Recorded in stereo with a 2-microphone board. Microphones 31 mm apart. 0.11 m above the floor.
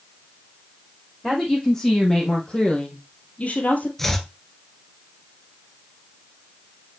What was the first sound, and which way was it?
A woman speaking, 15° left (ahead or behind).